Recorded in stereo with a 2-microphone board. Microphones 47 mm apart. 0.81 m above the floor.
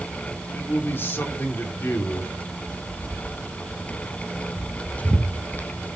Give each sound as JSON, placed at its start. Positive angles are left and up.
{"t": 0.5, "sound": "a man speaking", "side_deg": 50, "distance_m": 3.0}
{"t": 2.7, "sound": "footsteps", "side_deg": 20, "distance_m": 3.5}